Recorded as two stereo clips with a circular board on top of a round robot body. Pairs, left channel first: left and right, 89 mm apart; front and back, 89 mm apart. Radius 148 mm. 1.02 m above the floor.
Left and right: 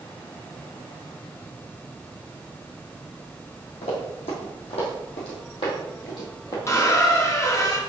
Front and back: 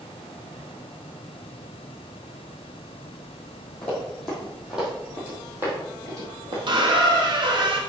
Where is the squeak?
150° left, 1.1 m.